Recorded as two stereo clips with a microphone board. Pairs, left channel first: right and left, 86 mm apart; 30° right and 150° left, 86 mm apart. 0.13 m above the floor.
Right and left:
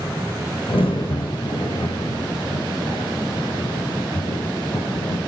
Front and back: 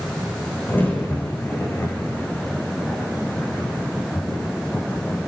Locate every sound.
0.7 s a crack: 95° right, 5 m